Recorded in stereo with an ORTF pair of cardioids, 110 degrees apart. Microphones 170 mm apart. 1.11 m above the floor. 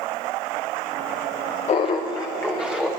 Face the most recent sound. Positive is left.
turn(degrees=5)